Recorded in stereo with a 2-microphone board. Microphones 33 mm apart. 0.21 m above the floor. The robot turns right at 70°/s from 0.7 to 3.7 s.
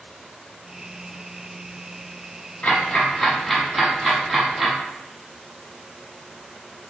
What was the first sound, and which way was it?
Ticking, 40° left (ahead or behind).